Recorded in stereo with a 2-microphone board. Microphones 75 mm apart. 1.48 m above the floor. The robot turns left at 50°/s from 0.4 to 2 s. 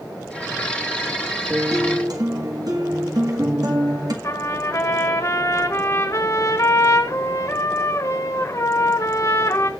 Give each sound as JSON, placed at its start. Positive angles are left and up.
{"t": 1.5, "sound": "a guitar", "side_deg": -35, "distance_m": 1.7}
{"t": 4.2, "sound": "a trumpet", "side_deg": 45, "distance_m": 1.5}